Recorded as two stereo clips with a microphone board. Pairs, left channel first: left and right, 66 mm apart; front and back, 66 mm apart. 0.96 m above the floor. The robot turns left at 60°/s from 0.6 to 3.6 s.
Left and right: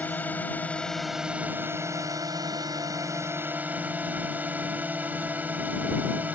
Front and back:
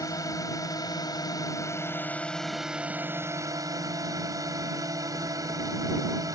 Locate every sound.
0.0 s a drone: 25° left; by 6.4 s 155° right